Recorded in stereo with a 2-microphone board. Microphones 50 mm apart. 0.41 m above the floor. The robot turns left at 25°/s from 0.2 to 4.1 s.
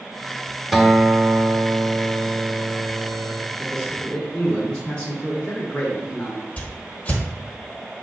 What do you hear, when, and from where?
0.7 s a guitar: 10° right, 0.6 m; by 3.5 s 75° right, 0.6 m
3.6 s a man speaking: 20° left (ahead or behind), 1.0 m
6.6 s a whoosh: 30° left (ahead or behind), 1.0 m